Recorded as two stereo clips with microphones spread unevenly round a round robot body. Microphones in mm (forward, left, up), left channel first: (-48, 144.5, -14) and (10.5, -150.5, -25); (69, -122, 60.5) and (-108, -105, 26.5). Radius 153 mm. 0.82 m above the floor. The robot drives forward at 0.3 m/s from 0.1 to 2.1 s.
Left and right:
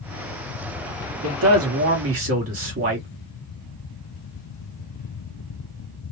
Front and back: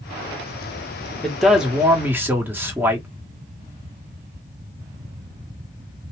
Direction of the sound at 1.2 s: 100° right.